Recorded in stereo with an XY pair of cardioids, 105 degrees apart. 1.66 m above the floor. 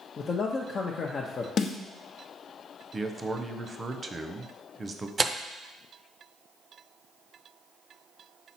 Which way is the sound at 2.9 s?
25° right.